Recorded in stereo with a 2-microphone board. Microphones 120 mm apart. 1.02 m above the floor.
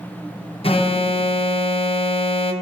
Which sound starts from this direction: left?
An alarm, at 0.6 s.